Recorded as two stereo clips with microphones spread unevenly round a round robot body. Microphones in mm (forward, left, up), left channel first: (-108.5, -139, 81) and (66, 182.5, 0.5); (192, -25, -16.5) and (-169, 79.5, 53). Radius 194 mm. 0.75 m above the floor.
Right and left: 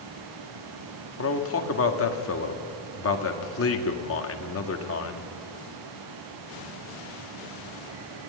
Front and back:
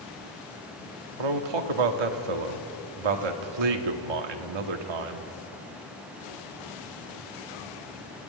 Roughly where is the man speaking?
Behind.